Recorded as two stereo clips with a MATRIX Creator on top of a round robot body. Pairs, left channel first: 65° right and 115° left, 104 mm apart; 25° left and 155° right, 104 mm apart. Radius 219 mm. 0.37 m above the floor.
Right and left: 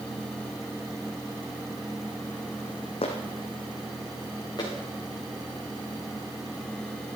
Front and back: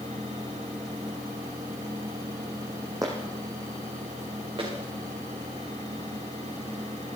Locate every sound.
3.0 s footsteps: 100° right, 2 m; by 4.7 s 120° right, 4.5 m